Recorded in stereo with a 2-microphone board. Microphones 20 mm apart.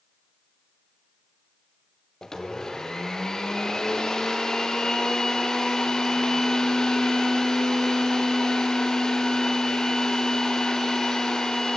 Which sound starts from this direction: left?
A blender, at 2.2 s.